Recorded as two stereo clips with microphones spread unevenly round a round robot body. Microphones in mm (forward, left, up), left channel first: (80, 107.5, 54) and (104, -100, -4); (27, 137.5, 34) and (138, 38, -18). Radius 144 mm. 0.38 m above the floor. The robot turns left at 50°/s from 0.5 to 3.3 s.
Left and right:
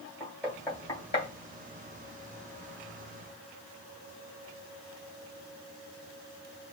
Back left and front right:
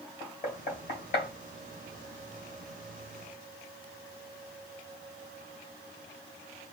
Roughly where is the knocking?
Behind right.